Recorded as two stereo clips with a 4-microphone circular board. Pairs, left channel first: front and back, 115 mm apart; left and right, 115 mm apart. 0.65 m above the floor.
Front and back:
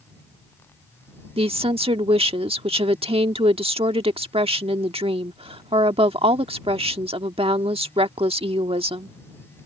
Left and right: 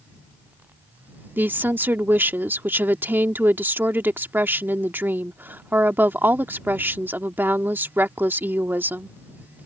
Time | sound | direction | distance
1.4 | a woman speaking | 160° right | ?